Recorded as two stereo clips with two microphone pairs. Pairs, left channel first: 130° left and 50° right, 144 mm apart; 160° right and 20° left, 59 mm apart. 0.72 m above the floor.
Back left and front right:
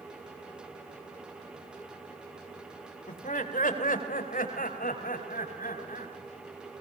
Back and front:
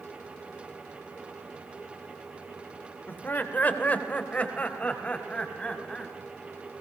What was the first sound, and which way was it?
Laughter, 145° left.